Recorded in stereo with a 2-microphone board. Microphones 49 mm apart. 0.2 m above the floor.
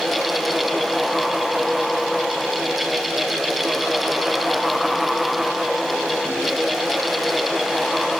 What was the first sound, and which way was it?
Only background noise.